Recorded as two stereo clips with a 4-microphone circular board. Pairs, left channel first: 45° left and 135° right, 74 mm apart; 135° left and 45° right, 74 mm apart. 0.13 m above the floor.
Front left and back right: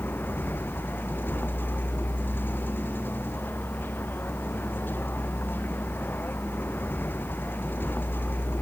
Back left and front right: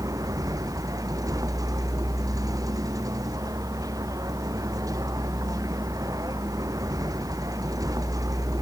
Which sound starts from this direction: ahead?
A vehicle, at 0.0 s.